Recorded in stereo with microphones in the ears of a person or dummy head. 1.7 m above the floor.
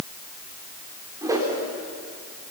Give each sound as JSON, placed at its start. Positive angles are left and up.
{"t": 1.2, "sound": "a whoosh", "side_deg": -20, "distance_m": 4.5}